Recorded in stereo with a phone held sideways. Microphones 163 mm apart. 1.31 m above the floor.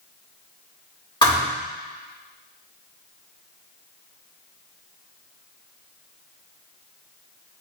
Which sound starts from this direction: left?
A thud, at 1.2 s.